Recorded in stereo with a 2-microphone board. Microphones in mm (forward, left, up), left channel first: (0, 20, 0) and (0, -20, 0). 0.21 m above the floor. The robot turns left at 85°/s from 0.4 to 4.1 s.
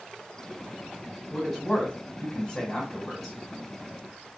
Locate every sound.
1.3 s a man speaking: 5° right (ahead or behind), 1.7 m; by 3.4 s 5° left (ahead or behind), 1.7 m